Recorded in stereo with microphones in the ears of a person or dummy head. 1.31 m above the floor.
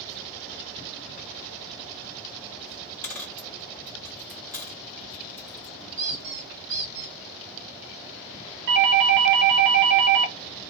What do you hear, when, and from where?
3.0 s a dropped coin: 10° left (ahead or behind), 0.7 m
6.0 s a squeak: 85° right, 2.5 m
8.7 s a doorbell: 60° right (ahead or behind), 1.1 m